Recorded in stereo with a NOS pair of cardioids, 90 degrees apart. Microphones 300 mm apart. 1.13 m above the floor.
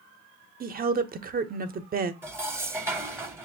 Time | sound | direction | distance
0.6 | a woman speaking | 30° right | 0.7 m
2.2 | dishes clattering | 10° right | 0.8 m